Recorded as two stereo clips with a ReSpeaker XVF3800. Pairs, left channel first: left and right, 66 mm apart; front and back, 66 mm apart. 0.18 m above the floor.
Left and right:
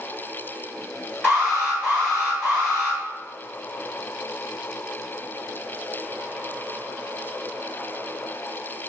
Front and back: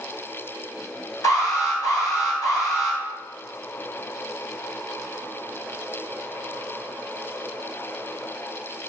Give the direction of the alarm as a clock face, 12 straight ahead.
12 o'clock.